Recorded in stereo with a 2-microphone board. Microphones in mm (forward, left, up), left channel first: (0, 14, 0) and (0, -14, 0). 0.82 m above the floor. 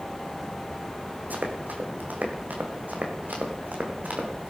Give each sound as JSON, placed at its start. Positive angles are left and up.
{"t": 1.3, "sound": "running footsteps", "side_deg": -75, "distance_m": 3.0}